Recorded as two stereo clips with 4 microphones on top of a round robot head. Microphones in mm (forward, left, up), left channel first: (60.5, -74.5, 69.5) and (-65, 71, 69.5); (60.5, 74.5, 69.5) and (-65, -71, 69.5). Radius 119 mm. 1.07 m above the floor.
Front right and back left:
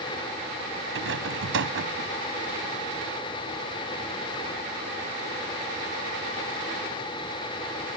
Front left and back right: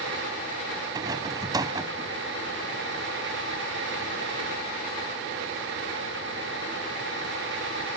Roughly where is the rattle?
Behind.